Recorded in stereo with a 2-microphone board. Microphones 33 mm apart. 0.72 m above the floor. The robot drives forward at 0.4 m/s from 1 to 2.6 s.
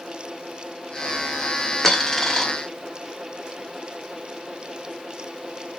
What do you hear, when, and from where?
1.8 s a dropped coin: 15° left (ahead or behind), 0.8 m; by 2.5 s 20° left (ahead or behind), 0.6 m